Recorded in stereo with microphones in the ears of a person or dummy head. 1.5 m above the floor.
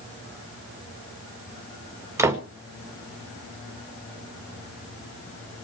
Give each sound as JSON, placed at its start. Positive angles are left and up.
{"t": 2.2, "sound": "a door slam", "side_deg": -15, "distance_m": 1.7}